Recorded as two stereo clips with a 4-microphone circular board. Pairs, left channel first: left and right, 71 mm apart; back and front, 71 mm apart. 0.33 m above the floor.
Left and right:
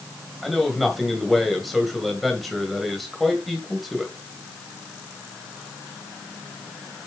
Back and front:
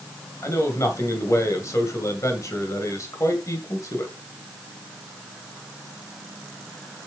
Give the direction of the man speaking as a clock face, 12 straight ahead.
6 o'clock.